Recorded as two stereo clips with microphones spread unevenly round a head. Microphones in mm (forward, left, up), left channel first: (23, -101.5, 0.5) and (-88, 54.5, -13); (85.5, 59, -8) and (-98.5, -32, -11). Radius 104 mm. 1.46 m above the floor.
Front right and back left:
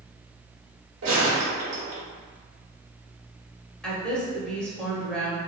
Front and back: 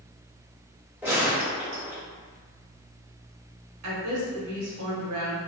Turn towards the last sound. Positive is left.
turn(degrees=-140)